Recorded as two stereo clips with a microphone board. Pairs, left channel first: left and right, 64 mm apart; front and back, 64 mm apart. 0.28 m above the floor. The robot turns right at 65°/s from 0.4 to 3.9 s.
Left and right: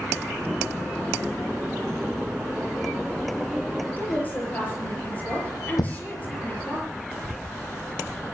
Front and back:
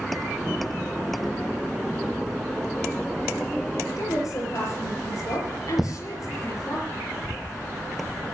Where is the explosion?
95° left, 2.5 m.